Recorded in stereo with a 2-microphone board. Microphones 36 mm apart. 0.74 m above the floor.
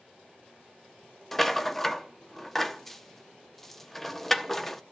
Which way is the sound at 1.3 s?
10° left (ahead or behind).